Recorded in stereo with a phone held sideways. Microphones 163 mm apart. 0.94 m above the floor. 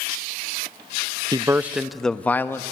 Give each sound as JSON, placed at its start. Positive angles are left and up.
{"t": 1.3, "sound": "a man speaking", "side_deg": -25, "distance_m": 0.5}